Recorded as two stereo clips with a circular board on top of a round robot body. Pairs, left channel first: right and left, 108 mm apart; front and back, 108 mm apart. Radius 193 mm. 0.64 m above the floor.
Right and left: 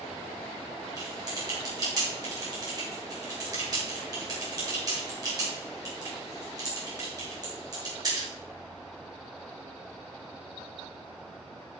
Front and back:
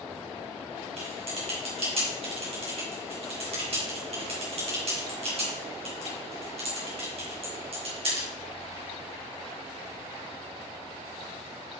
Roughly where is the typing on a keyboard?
Behind left.